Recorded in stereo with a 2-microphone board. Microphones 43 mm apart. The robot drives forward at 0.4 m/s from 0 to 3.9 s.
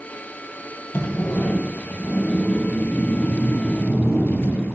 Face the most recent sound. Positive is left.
turn(degrees=55)  # may be behind; listen again after turning